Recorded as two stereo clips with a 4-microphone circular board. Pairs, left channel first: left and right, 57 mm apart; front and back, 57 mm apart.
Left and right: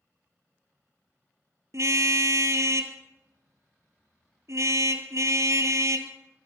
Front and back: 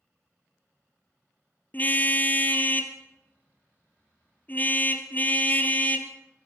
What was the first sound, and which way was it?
A car horn, 60° right.